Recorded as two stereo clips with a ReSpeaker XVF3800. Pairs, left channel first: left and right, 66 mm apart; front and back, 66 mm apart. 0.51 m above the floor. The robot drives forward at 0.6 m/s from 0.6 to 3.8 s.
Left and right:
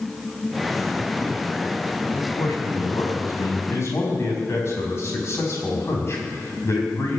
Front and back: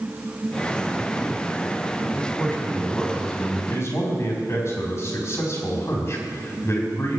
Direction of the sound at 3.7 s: 45° left.